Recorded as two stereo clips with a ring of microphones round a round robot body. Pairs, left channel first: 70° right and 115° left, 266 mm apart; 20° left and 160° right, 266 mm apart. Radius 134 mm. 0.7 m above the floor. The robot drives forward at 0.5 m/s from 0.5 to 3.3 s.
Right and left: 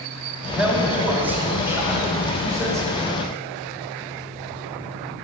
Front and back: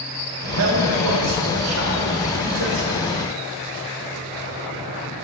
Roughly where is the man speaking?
Behind.